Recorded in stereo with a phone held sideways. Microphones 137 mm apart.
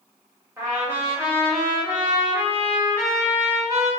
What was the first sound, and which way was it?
A trumpet, 20° right (ahead or behind).